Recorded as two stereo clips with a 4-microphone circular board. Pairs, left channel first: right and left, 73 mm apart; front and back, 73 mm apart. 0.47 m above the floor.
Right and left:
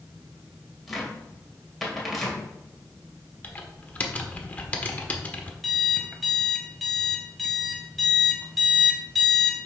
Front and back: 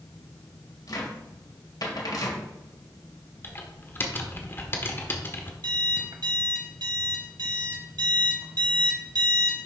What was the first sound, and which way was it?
A cupboard door, straight ahead.